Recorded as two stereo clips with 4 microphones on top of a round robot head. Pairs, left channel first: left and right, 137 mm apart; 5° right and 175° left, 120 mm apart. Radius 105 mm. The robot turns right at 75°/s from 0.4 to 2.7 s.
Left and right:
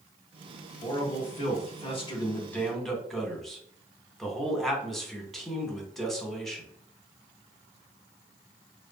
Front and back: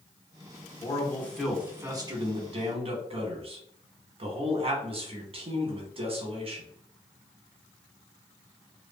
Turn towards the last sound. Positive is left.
turn(degrees=175)